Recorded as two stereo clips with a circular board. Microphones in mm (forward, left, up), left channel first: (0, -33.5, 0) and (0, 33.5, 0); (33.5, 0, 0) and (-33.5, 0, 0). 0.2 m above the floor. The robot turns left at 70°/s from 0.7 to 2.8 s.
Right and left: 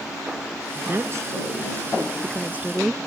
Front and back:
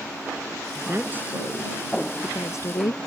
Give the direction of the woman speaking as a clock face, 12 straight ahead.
7 o'clock.